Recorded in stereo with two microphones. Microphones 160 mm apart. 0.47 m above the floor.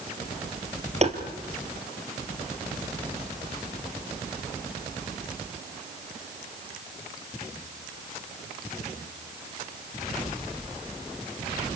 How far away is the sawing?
I don't hear sawing.